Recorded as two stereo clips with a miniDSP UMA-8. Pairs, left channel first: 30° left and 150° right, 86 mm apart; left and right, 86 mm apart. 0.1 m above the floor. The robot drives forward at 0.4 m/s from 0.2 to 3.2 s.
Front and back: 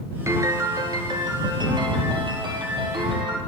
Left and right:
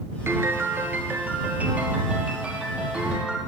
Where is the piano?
125° right, 0.6 m; by 3.4 s 165° right, 1.5 m.